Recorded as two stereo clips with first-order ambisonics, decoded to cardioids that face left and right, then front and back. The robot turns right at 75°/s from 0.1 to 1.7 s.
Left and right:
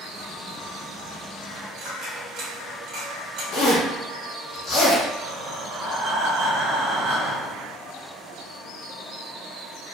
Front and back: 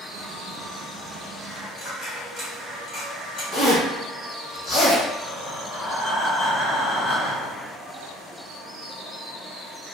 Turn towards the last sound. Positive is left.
turn(degrees=-70)